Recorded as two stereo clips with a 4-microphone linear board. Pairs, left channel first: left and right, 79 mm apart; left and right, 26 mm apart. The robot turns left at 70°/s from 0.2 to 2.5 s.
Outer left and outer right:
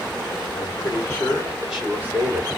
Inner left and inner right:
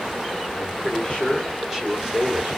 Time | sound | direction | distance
0.5 | a man speaking | 75° left | 2.5 m